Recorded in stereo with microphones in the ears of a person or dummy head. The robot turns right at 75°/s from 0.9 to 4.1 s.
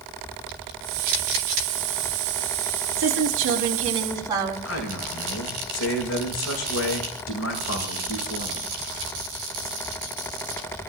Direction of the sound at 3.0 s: 105° right.